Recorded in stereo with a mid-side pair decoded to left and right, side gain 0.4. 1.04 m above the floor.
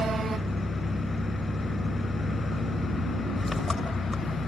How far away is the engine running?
About 7 m.